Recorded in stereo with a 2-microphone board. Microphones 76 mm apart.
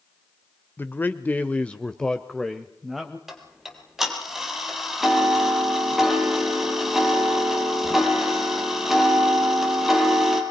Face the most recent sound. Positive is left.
turn(degrees=-5)  # may be behind; listen again after turning